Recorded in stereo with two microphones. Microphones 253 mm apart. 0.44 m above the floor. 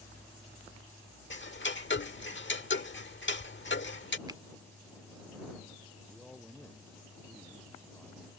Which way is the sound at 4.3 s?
15° right (ahead or behind).